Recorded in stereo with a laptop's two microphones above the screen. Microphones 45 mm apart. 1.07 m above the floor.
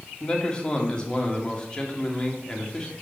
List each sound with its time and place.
0.2 s a man speaking: 20° left (ahead or behind), 2 m